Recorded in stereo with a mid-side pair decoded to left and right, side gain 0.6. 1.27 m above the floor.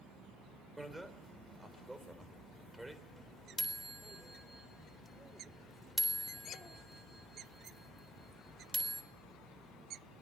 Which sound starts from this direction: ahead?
A bicycle bell, at 0.8 s.